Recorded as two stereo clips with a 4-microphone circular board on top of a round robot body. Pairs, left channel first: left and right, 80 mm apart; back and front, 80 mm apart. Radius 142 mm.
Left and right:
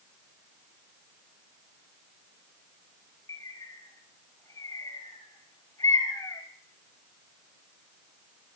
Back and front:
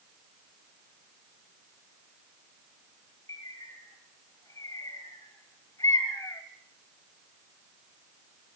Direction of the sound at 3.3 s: 135° left.